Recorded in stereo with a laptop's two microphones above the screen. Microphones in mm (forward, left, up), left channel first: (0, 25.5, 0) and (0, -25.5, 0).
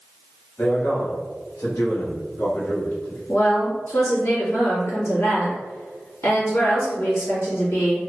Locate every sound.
0.6 s a man speaking: 50° left (ahead or behind), 1.2 m; by 3.2 s 55° left (ahead or behind), 2 m
3.3 s a woman speaking: 65° left (ahead or behind), 1.7 m